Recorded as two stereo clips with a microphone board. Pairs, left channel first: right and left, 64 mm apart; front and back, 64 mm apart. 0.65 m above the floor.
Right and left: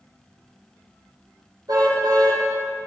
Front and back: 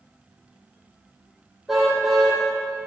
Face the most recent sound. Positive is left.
turn(degrees=95)